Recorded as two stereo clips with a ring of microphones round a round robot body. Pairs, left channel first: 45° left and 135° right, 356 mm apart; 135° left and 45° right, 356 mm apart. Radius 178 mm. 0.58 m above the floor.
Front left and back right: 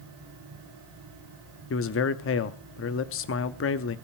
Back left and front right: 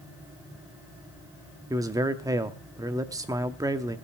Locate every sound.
1.7 s a man speaking: 30° left, 0.7 m